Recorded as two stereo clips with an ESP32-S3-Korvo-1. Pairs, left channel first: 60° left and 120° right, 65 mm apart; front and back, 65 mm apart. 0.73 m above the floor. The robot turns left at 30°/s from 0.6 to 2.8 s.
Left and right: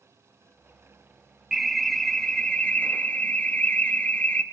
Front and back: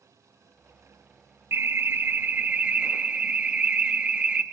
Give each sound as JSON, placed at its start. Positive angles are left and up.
{"t": 1.5, "sound": "an alarm", "azimuth_deg": 155, "distance_m": 0.7}